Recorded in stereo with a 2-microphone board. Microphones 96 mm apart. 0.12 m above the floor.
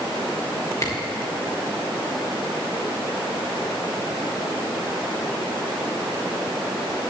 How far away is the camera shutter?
About 4.5 m.